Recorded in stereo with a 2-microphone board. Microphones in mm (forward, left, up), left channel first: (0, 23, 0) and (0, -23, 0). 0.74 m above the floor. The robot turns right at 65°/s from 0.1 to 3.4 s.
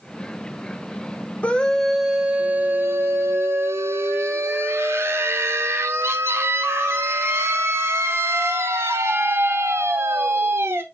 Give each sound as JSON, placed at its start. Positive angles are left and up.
{"t": 1.4, "sound": "a scream", "azimuth_deg": 145, "distance_m": 1.9}